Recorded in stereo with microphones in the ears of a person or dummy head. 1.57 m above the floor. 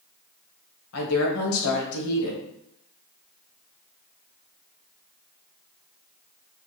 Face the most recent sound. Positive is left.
turn(degrees=80)